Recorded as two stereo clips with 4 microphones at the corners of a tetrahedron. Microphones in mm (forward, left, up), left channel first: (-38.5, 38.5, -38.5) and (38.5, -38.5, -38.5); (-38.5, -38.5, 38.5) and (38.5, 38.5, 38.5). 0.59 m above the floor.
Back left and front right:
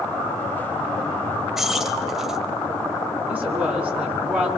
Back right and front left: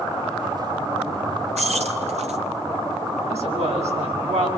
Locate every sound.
1.6 s keys jangling: 40° left, 1.8 m
3.3 s a woman speaking: 30° left, 6.5 m